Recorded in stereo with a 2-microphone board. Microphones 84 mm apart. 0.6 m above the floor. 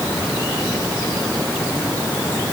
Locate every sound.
Only background noise.